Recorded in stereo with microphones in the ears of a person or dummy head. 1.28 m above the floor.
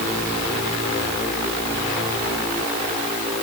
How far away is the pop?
No pop in this recording.